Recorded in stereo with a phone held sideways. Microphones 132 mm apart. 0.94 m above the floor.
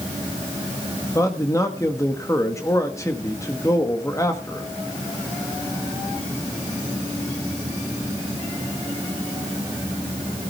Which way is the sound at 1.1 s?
25° left (ahead or behind).